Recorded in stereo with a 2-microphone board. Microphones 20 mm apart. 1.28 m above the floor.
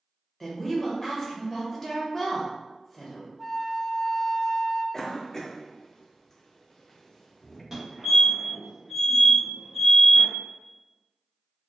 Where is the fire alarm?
15° right (ahead or behind), 0.9 m.